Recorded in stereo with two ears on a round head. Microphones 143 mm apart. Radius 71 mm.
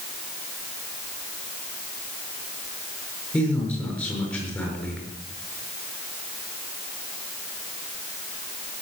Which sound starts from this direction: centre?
A man speaking, at 3.3 s.